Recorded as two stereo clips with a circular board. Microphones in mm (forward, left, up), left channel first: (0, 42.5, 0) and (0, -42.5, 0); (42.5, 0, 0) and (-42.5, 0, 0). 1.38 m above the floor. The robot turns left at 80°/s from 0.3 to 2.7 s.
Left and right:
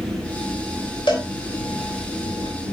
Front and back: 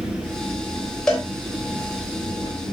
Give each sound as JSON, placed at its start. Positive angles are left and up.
{"t": 0.0, "sound": "an engine running", "azimuth_deg": -140, "distance_m": 5.5}
{"t": 1.1, "sound": "a cowbell", "azimuth_deg": 80, "distance_m": 3.0}